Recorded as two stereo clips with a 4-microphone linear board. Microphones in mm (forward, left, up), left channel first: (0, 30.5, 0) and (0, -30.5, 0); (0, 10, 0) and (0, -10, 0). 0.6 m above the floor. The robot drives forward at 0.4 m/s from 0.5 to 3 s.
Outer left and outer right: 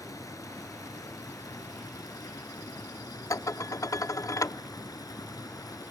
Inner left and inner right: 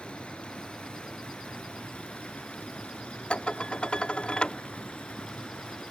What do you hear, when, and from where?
0.0 s running water: 65° left (ahead or behind), 3 m; by 5.9 s 85° left, 3 m
3.3 s dishes clattering: 60° left (ahead or behind), 0.6 m